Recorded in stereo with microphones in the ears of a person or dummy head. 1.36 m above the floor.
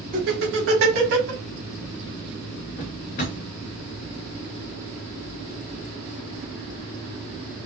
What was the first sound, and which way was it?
Laughter, 45° right (ahead or behind).